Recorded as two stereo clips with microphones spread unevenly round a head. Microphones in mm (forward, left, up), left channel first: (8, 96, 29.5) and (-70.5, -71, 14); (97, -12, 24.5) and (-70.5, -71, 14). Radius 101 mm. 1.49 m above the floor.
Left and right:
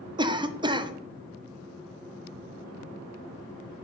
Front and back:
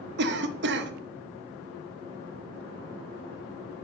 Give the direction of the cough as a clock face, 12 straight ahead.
6 o'clock.